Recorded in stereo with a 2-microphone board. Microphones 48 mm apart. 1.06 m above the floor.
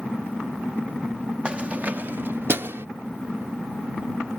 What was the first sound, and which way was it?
Keys jangling, 20° right (ahead or behind).